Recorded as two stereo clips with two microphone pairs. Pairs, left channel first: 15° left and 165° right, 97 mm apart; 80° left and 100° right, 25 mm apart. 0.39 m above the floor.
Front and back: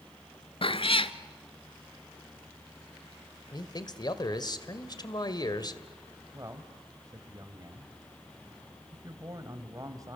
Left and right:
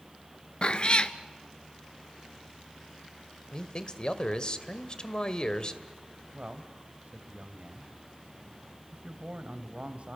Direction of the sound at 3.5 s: 35° left.